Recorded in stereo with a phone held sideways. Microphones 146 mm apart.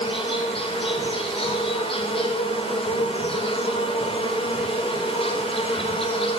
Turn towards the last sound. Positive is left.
turn(degrees=40)  # may be behind; listen again after turning